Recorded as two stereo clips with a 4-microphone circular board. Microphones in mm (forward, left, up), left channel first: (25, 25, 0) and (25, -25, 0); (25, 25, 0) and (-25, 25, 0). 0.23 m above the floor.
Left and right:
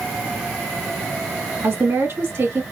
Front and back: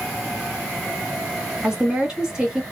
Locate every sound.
1.6 s a woman speaking: 105° right, 2 m